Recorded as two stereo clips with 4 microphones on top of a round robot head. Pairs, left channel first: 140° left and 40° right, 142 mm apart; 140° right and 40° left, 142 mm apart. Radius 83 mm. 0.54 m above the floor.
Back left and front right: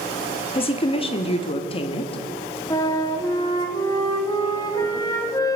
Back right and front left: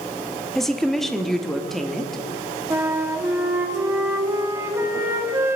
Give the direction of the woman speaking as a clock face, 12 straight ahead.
7 o'clock.